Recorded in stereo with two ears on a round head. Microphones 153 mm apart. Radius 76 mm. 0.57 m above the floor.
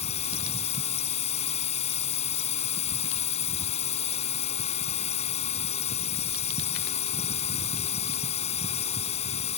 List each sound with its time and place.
0.0 s a drone: 35° left (ahead or behind)